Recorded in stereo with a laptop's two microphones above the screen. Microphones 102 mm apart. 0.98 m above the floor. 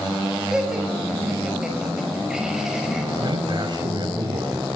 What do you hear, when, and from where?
0.5 s laughter: 5° right (ahead or behind), 5.5 m
3.2 s a man speaking: 45° right (ahead or behind), 7 m